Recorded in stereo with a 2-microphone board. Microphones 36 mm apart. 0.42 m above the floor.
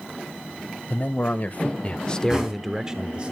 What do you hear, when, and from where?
0.9 s a man speaking: 50° left (ahead or behind), 2 m; by 3.3 s 35° right (ahead or behind), 1.4 m
2.3 s knocking: 15° right (ahead or behind), 3.5 m